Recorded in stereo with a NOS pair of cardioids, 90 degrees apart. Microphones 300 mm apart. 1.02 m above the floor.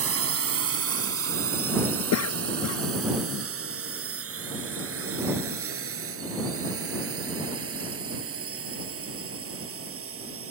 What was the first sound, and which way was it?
A drone, 50° right.